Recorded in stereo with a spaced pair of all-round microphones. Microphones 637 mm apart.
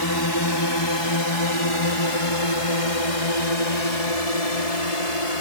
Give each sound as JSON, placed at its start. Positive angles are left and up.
{"t": 0.0, "sound": "a drone", "side_deg": 35}